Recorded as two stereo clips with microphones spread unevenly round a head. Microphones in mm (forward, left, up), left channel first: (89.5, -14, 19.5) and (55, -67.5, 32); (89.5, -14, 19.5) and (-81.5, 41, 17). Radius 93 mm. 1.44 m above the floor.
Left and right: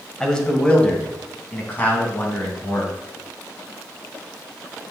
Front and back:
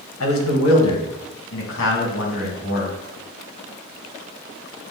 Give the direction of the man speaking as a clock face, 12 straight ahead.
1 o'clock.